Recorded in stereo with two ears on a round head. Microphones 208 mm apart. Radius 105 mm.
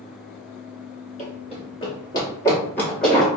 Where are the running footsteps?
35° left (ahead or behind), 1.9 m; by 3.3 s centre (ahead or behind), 2.0 m.